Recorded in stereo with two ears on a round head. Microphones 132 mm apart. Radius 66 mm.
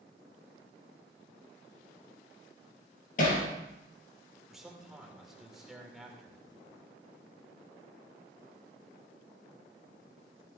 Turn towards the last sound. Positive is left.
turn(degrees=-5)  # may be behind; listen again after turning